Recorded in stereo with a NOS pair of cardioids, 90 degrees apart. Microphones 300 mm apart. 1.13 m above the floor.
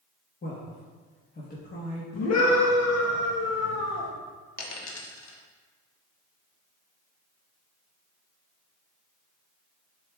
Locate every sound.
0.4 s a man speaking: 30° left, 1.3 m
2.1 s a scream: 65° left, 1.6 m
4.6 s a dropped coin: 65° left, 1.2 m